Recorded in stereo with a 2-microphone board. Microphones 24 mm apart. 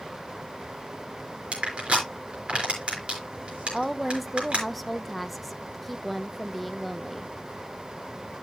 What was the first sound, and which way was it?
Crushing, 65° right (ahead or behind).